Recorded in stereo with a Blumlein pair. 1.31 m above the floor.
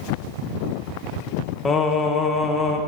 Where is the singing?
20° left, 0.9 m.